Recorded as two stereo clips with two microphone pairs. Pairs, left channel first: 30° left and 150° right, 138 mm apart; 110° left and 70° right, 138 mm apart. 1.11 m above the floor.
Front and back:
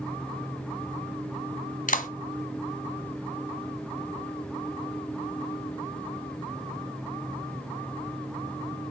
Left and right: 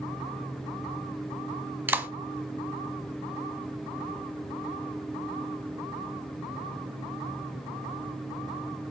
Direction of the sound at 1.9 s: 5° left.